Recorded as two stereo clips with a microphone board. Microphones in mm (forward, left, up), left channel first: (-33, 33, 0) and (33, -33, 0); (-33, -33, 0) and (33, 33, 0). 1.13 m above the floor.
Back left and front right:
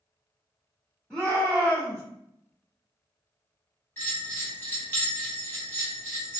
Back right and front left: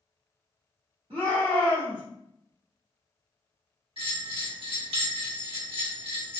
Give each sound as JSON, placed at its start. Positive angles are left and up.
{"t": 1.1, "sound": "a shout", "azimuth_deg": 50, "distance_m": 1.4}
{"t": 4.0, "sound": "a bell", "azimuth_deg": 70, "distance_m": 1.3}